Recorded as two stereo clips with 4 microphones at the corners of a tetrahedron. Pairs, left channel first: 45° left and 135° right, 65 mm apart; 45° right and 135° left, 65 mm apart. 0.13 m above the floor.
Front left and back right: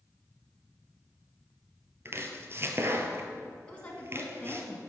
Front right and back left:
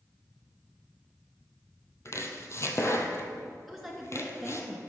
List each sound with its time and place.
2.0 s chopping: 85° right, 1.0 m
3.7 s a woman speaking: 45° left, 1.2 m